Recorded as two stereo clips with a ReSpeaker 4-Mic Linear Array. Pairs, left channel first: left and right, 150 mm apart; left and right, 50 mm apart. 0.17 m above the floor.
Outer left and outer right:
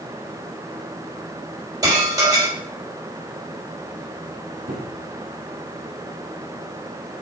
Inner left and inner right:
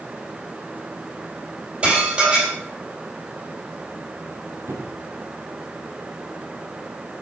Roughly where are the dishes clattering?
Right.